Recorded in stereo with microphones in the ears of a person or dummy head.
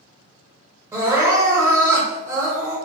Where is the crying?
15° right (ahead or behind), 1.4 m.